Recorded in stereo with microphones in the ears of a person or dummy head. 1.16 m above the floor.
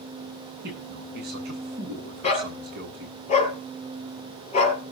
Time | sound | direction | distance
0.6 | a man speaking | 60° right (ahead or behind) | 9.5 m
2.2 | a dog barking | 40° left (ahead or behind) | 5 m